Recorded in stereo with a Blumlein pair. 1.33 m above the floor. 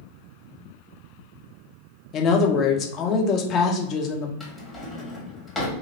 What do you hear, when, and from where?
2.1 s a woman speaking: 30° left, 0.7 m
4.4 s a drawer: 10° left, 1.3 m